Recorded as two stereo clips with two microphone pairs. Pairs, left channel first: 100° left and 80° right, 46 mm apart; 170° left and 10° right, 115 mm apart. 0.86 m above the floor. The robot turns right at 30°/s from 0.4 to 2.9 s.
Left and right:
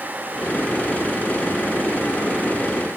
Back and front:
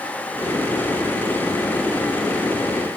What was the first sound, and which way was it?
Only background noise.